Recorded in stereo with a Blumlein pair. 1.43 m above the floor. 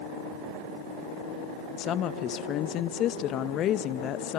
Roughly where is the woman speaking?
Ahead left.